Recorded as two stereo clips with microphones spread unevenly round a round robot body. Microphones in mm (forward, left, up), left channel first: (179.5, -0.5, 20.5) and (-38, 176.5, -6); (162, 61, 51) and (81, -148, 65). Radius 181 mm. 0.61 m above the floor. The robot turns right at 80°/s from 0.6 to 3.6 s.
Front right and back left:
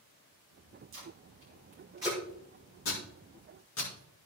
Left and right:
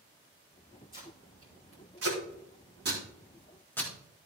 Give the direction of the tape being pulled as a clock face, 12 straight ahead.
8 o'clock.